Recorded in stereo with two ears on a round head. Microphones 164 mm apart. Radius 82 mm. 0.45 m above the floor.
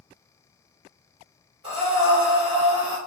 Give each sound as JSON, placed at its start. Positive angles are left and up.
{"t": 1.6, "sound": "breathing", "side_deg": -30, "distance_m": 1.4}